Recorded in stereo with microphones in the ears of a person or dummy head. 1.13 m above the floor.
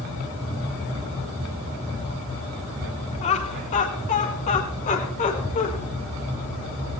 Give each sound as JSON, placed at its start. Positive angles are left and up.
{"t": 3.2, "sound": "laughter", "side_deg": 35, "distance_m": 1.7}